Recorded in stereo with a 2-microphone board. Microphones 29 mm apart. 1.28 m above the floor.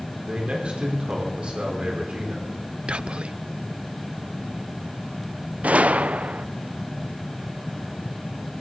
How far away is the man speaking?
About 3.5 m.